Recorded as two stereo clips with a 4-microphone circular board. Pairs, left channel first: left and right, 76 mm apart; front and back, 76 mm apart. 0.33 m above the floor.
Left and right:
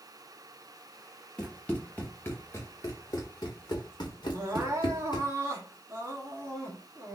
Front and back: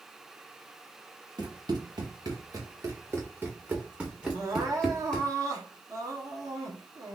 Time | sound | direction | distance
1.4 | running footsteps | 170° left | 1.7 m
4.3 | crying | 145° right | 1.0 m